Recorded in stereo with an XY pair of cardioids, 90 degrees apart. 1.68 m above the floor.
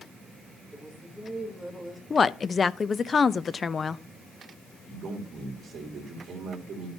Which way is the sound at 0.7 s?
Straight ahead.